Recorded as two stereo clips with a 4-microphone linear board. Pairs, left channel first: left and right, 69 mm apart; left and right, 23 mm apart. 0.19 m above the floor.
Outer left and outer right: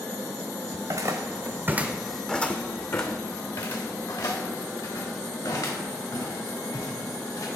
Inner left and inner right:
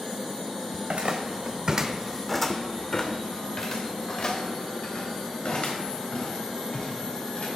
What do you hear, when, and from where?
0.7 s footsteps: 65° right (ahead or behind), 0.9 m; by 7.5 s 75° left (ahead or behind), 3.5 m